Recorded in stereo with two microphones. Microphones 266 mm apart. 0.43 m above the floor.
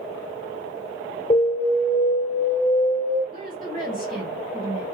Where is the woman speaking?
30° right (ahead or behind), 2 m.